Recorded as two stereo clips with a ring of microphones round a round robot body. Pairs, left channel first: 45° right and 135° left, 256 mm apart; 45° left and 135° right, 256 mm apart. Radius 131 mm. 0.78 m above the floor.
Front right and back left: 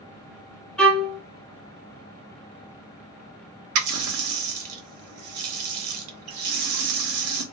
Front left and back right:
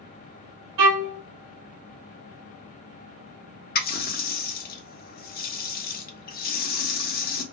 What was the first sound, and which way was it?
A violin, 130° right.